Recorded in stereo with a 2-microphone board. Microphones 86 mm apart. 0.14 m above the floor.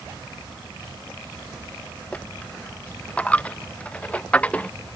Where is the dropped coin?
15° left (ahead or behind).